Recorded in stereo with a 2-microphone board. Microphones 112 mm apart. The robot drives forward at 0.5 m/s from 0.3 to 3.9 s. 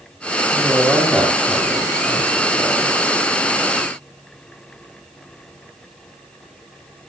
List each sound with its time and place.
0.5 s a woman speaking: centre (ahead or behind), 6 m